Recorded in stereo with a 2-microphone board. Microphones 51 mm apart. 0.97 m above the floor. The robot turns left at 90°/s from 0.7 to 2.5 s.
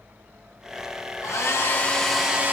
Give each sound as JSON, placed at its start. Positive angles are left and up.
{"t": 1.2, "sound": "a hair dryer", "azimuth_deg": 85, "distance_m": 1.0}